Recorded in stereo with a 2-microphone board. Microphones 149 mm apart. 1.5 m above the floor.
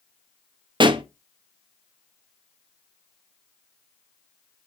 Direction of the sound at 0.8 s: 35° right (ahead or behind).